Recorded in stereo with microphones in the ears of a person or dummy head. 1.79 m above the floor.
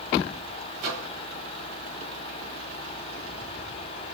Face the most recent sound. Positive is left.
turn(degrees=-50)  # may be behind; listen again after turning